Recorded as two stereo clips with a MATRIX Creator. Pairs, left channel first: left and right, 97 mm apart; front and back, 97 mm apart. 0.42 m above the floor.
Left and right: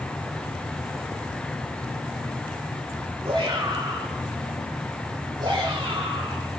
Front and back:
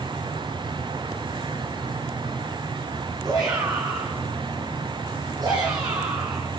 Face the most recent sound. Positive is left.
turn(degrees=-130)